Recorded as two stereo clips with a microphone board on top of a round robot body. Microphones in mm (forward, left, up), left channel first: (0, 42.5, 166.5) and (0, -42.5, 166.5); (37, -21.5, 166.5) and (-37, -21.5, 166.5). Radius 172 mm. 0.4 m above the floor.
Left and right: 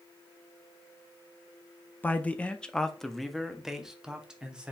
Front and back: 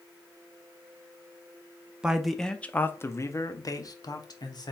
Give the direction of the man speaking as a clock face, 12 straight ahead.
8 o'clock.